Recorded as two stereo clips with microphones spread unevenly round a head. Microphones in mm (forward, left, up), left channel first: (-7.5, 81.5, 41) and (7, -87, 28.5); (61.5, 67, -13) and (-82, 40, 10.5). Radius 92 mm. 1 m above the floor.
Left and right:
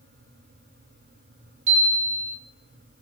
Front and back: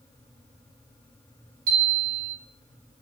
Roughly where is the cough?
No cough in this recording.